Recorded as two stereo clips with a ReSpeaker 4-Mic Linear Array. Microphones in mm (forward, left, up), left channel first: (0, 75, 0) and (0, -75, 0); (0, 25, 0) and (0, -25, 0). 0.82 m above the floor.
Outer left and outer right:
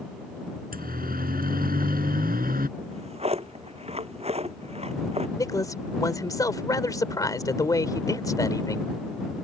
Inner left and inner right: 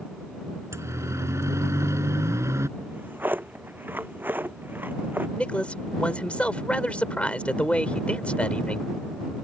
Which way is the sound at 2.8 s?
45° right (ahead or behind).